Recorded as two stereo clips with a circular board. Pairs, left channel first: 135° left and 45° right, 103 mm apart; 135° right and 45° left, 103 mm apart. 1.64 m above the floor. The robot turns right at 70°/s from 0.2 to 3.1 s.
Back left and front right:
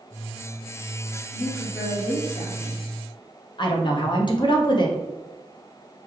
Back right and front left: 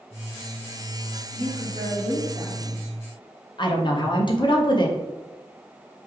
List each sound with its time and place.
1.3 s a woman speaking: 40° left, 1.5 m; by 2.8 s 145° left, 1.5 m
3.6 s a woman speaking: straight behind, 0.8 m